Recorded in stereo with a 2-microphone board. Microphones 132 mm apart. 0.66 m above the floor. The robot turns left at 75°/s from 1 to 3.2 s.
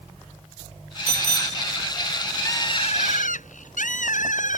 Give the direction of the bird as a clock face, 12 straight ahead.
7 o'clock.